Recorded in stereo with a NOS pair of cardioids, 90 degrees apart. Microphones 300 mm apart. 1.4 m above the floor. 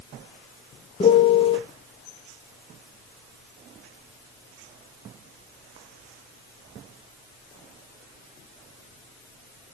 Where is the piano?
20° left, 0.5 m.